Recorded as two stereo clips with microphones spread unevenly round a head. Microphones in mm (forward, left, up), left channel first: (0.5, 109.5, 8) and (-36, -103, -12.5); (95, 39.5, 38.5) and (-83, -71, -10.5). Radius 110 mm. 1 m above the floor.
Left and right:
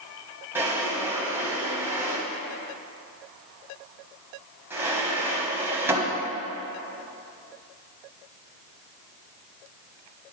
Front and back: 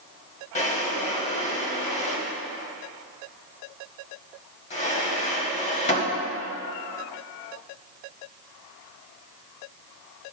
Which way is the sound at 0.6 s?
15° right.